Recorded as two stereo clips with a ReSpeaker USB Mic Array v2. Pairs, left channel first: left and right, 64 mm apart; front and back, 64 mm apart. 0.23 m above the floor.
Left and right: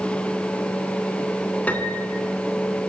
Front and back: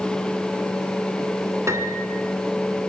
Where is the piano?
150° left, 3 m.